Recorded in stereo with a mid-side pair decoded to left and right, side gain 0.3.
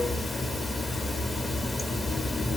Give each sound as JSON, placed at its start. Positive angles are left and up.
{"t": 0.0, "sound": "running water", "azimuth_deg": 40, "distance_m": 0.9}